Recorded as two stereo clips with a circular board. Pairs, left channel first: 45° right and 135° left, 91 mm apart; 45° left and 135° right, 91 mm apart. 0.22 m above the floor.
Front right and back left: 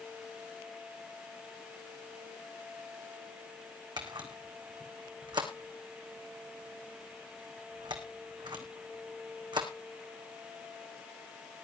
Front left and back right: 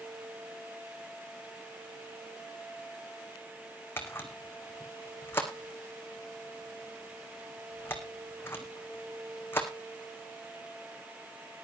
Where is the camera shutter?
110° left, 2 m.